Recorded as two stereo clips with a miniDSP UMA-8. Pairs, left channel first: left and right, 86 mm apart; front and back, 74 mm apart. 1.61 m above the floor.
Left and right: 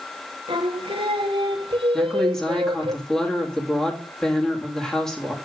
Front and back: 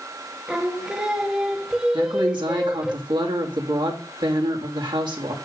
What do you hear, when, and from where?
0.5 s singing: 100° right, 1.0 m
1.9 s a woman speaking: 175° left, 2.5 m